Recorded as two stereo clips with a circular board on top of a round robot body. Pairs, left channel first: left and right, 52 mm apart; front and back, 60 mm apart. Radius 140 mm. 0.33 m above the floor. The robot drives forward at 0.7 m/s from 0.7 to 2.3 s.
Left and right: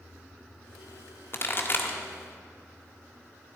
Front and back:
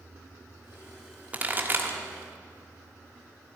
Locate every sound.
1.3 s a pop: 120° left, 1.4 m; by 2.0 s 135° left, 1.6 m